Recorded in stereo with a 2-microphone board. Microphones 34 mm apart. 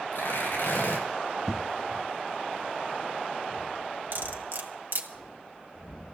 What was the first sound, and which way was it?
Tearing paper, 70° left (ahead or behind).